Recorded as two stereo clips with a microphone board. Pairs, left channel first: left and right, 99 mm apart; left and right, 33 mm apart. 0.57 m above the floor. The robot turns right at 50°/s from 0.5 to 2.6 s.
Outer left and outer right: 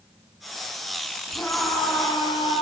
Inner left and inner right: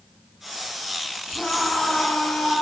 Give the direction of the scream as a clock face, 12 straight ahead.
12 o'clock.